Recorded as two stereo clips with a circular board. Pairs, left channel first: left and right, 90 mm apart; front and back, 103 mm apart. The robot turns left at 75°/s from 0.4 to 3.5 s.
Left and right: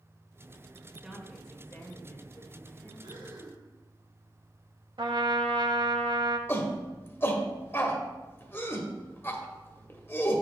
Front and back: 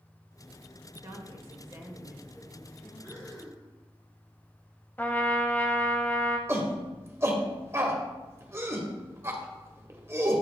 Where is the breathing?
60° right, 2.0 m; by 3.6 s 95° right, 2.0 m.